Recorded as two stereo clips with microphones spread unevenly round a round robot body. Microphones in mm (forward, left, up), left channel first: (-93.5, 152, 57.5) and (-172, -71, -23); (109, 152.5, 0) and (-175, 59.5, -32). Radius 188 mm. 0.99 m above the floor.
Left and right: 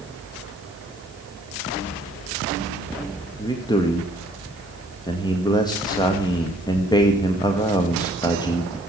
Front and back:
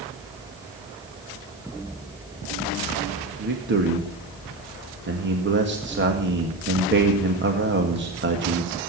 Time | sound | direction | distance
3.4 | a man speaking | 150° left | 1.8 m